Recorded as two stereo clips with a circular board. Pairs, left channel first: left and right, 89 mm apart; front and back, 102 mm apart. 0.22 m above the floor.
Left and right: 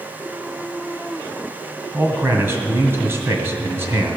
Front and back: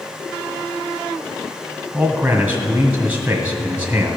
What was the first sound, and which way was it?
A man speaking, 115° right.